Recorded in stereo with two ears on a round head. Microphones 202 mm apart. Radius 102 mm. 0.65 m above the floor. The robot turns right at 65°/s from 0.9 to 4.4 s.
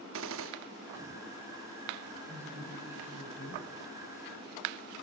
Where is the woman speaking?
20° right, 3.5 m; by 3.7 s 70° left, 3.5 m.